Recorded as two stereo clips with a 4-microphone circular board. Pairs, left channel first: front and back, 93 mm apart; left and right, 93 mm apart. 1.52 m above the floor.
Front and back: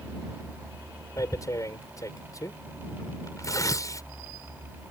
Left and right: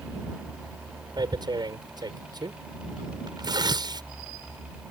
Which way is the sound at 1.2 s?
50° right.